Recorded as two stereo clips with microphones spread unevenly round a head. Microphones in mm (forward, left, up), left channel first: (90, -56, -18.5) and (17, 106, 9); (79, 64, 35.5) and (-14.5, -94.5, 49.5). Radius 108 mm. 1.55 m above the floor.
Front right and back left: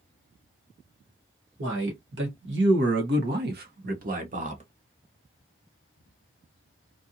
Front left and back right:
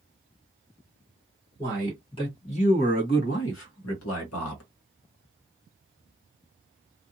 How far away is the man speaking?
About 1.4 m.